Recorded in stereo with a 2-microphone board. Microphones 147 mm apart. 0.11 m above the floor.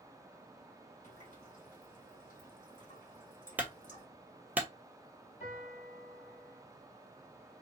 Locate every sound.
1.0 s a running tap: 60° left (ahead or behind), 2.5 m
3.6 s a clunk: 10° right (ahead or behind), 0.9 m
5.4 s a piano: 50° left (ahead or behind), 2.5 m